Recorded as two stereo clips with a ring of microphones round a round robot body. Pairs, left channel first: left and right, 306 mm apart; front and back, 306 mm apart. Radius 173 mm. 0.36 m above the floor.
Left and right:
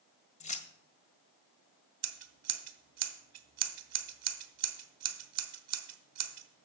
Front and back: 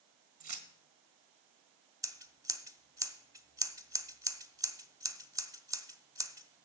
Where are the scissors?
105° right, 1.1 m.